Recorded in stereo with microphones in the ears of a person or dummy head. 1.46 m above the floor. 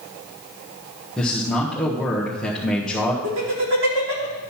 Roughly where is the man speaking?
Centre.